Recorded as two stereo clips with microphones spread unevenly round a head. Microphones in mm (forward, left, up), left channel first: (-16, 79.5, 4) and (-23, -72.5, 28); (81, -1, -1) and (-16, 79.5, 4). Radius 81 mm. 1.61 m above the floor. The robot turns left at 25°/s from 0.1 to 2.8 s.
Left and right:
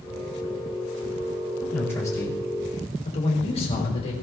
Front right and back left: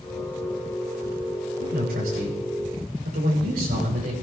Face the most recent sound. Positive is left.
turn(degrees=140)